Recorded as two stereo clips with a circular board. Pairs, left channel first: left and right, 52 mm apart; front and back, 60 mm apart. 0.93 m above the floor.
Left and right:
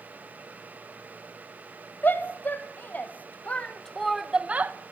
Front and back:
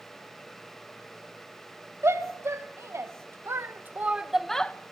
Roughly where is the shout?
Behind left.